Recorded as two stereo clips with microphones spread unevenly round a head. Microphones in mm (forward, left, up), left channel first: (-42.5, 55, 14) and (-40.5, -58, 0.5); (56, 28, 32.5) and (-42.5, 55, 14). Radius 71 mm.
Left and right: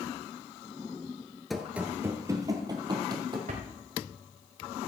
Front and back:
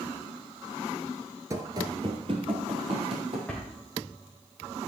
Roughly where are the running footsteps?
Behind left.